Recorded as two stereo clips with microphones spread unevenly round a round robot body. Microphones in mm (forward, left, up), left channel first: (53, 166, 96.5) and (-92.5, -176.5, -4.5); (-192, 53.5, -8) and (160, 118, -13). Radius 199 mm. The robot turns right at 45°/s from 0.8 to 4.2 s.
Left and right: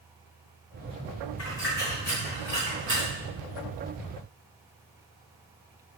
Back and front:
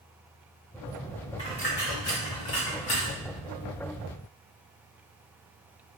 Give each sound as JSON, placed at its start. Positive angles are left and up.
{"t": 1.4, "sound": "a dropped coin", "azimuth_deg": 115, "distance_m": 2.0}